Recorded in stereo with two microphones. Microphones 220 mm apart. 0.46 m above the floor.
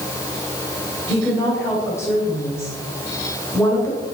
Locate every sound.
1.1 s a woman speaking: 10° left (ahead or behind), 2.5 m